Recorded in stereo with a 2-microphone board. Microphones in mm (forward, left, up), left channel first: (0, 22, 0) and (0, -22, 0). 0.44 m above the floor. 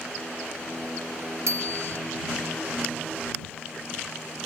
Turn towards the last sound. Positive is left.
turn(degrees=-80)